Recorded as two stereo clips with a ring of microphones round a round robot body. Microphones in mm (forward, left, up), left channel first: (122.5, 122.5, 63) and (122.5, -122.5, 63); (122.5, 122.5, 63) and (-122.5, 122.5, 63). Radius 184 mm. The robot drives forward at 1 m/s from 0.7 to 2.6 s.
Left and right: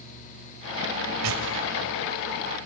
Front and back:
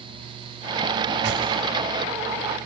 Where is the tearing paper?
120° right, 1.7 m; by 1.4 s 125° right, 1.8 m.